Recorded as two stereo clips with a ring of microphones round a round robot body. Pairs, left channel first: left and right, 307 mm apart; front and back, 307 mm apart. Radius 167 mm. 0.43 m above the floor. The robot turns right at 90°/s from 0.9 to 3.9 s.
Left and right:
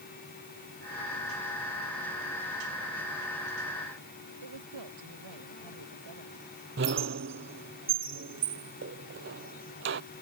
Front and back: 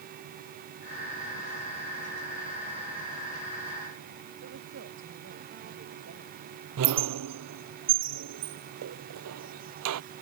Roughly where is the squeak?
Behind right.